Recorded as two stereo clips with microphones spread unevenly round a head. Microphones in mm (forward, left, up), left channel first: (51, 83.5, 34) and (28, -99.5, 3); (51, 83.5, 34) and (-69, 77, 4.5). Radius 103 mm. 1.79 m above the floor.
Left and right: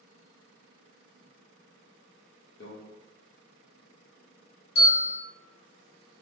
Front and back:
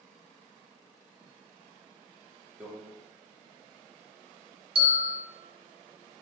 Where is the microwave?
95° left, 0.7 m.